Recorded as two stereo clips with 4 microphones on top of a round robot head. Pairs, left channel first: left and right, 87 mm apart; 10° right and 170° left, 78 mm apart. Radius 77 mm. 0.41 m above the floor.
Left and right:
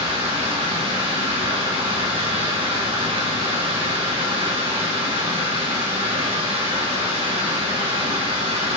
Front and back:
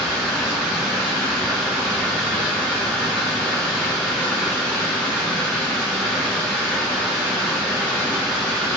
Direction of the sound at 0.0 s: 110° right.